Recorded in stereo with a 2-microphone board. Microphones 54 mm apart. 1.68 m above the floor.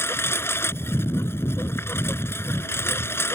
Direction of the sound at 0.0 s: 45° left (ahead or behind).